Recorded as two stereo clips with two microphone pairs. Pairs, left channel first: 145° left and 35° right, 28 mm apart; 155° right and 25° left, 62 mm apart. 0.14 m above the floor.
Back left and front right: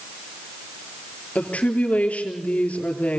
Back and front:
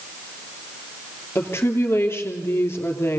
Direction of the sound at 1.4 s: 160° left.